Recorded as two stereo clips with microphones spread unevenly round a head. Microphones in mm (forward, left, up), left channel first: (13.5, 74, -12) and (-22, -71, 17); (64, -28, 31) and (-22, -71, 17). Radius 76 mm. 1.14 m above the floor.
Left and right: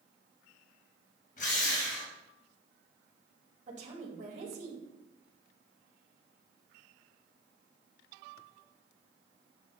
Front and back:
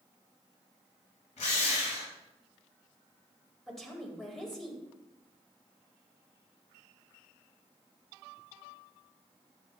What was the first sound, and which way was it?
A drill, 35° left.